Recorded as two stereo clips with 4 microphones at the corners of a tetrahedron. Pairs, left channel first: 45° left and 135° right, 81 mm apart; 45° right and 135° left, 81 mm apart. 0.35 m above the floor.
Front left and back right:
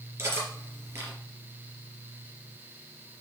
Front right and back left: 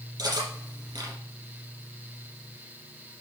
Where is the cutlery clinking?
165° left, 4.5 m.